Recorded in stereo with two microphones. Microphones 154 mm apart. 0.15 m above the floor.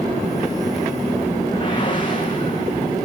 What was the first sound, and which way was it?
A whoosh, 30° left (ahead or behind).